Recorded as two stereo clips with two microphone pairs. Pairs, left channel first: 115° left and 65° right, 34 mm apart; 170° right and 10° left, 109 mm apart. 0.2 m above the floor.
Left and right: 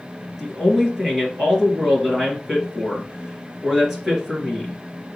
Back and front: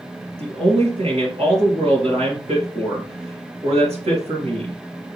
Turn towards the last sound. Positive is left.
turn(degrees=20)